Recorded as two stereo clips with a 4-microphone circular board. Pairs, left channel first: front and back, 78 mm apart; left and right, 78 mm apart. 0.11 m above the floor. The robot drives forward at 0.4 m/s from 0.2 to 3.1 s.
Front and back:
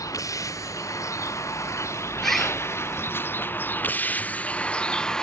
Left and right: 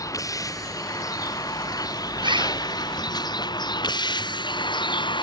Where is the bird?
85° right.